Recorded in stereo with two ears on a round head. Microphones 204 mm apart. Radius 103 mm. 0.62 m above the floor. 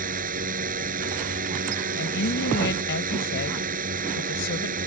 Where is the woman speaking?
55° left (ahead or behind).